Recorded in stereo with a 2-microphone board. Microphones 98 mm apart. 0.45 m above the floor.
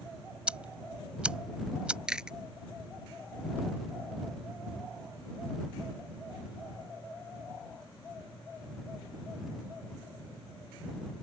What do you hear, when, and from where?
0.5 s ticking: 10° right (ahead or behind)
2.1 s chewing: 10° right (ahead or behind)